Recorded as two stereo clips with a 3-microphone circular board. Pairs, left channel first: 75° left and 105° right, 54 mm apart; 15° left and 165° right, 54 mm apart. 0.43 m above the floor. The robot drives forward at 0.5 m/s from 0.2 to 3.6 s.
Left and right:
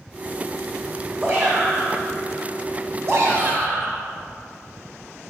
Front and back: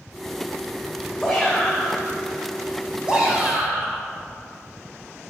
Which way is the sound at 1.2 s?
60° right.